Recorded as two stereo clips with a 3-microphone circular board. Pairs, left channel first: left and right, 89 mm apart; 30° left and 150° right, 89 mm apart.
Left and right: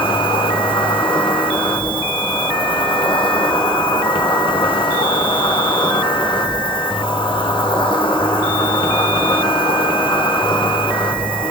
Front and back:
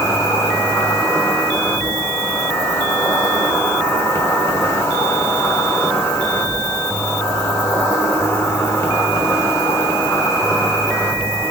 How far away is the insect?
About 1.0 m.